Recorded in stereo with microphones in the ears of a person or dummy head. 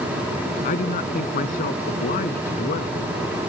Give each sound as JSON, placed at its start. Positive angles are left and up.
{"t": 0.6, "sound": "a man speaking", "side_deg": 45}